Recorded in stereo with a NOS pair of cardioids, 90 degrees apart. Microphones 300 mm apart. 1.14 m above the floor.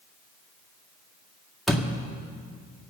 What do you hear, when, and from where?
1.7 s a door slam: straight ahead, 2 m